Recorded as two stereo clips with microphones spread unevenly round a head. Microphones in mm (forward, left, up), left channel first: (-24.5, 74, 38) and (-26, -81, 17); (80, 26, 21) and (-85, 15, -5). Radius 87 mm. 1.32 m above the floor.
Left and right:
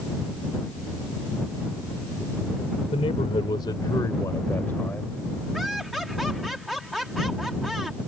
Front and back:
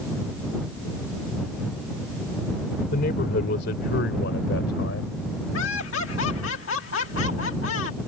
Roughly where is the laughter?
Ahead.